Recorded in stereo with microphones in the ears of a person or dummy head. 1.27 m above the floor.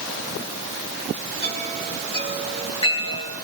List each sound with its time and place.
1.4 s a chime: 25° left (ahead or behind), 8.5 m